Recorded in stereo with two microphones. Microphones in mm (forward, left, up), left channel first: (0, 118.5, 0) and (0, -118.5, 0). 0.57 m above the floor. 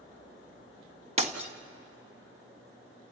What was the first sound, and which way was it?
Breaking glass, 25° right (ahead or behind).